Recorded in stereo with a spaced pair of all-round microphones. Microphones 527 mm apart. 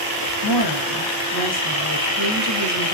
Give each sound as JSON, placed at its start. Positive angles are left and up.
{"t": 0.4, "sound": "a woman speaking", "side_deg": 50, "distance_m": 1.0}